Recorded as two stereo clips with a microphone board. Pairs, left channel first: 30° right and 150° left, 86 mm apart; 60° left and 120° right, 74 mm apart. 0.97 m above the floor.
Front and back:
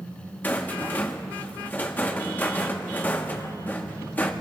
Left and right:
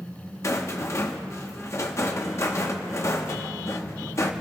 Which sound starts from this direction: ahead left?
A rattle, at 0.4 s.